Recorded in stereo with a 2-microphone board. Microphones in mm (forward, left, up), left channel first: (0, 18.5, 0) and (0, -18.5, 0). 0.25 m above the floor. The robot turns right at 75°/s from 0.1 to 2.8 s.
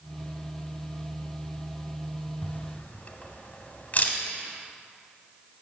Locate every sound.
2.4 s a camera shutter: 50° left (ahead or behind), 1.0 m; by 4.2 s 40° left (ahead or behind), 1.0 m